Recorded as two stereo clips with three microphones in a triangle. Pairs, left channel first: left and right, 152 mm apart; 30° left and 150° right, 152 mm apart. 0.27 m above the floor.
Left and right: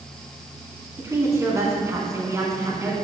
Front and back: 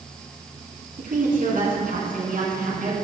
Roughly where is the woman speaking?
Behind.